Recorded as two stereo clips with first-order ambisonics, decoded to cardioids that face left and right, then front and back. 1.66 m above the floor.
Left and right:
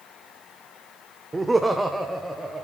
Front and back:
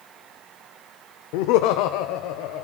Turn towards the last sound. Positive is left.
turn(degrees=0)